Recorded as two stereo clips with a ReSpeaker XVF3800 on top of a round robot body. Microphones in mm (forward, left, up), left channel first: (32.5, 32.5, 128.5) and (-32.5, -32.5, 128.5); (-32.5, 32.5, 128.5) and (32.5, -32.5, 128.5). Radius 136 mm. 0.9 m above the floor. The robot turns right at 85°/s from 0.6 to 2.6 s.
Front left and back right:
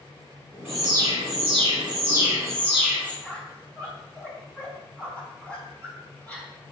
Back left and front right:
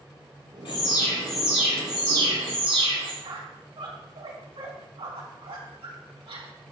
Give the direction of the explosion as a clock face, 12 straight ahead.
I don't hear an explosion.